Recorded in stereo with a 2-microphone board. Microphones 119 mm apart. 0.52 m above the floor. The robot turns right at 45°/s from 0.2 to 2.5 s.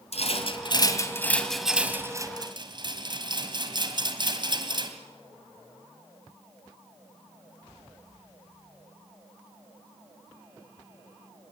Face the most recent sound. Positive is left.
turn(degrees=-40)  # may be behind; listen again after turning